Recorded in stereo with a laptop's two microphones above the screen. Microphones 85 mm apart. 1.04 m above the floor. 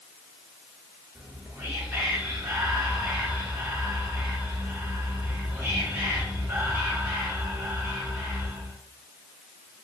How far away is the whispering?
About 1.1 m.